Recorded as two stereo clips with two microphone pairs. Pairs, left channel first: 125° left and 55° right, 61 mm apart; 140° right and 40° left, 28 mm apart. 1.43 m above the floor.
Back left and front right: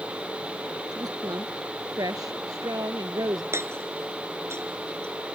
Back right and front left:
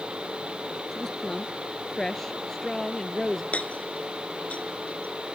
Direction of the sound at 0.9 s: 60° right.